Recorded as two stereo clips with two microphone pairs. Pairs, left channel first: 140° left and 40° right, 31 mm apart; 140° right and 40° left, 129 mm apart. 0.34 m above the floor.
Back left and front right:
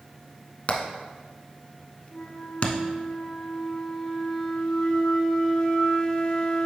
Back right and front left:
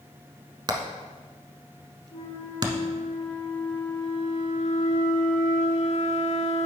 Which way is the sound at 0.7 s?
100° left.